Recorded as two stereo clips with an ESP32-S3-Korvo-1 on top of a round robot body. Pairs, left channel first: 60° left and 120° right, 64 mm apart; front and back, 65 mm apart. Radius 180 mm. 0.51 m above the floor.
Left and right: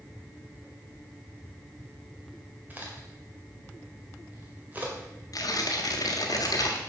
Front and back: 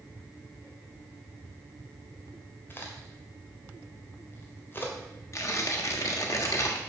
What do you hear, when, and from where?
2.7 s a crack: 55° right, 2.0 m
5.3 s tearing paper: 40° left, 1.4 m